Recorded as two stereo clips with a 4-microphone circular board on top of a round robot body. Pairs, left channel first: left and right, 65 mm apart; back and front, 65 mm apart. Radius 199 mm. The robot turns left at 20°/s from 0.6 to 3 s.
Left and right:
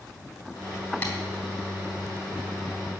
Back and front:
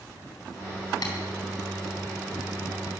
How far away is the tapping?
About 2.5 m.